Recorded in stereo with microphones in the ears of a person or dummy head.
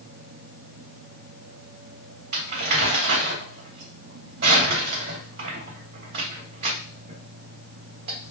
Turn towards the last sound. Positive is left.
turn(degrees=-50)  # may be behind; listen again after turning